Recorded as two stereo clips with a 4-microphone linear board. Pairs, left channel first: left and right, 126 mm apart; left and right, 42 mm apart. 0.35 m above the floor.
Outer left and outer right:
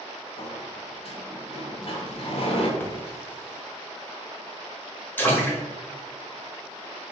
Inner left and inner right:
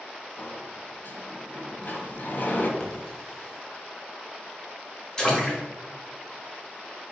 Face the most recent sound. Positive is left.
turn(degrees=15)  # may be behind; listen again after turning